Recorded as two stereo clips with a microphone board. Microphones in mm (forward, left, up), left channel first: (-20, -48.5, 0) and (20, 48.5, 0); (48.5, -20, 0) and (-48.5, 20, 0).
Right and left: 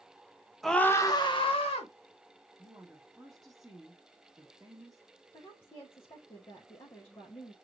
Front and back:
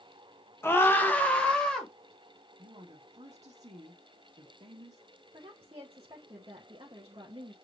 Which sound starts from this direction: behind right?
A woman speaking, at 5.3 s.